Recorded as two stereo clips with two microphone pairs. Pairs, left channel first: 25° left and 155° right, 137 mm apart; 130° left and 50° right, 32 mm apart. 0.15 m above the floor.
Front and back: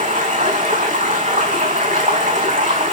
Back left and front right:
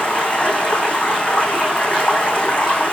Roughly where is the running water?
Behind.